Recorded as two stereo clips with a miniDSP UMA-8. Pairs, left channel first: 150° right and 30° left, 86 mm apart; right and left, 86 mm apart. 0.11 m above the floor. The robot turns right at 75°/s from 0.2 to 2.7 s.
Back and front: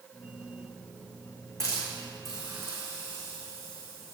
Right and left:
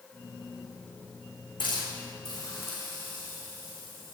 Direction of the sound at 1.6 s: 105° right.